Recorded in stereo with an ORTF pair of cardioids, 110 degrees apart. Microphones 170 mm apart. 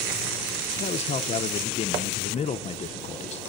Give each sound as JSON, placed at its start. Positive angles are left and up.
{"t": 0.8, "sound": "a man speaking", "azimuth_deg": 40, "distance_m": 0.9}